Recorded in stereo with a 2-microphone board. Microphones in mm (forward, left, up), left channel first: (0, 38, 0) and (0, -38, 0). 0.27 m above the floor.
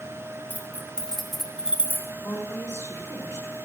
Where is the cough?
I don't hear a cough.